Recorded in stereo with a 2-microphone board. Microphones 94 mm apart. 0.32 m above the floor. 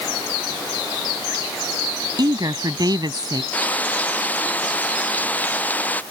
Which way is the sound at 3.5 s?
15° left (ahead or behind).